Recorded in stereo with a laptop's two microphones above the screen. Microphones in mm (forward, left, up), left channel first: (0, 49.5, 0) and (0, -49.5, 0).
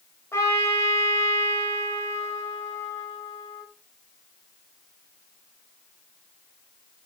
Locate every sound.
0.3 s a trumpet: 25° left (ahead or behind), 2.0 m